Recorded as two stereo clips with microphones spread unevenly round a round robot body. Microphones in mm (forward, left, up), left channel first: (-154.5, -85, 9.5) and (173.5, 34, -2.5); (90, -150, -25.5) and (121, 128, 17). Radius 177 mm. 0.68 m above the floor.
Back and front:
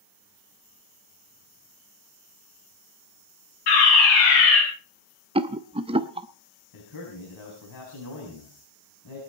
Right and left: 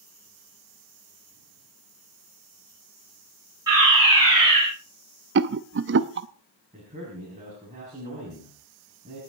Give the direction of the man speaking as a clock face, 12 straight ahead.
7 o'clock.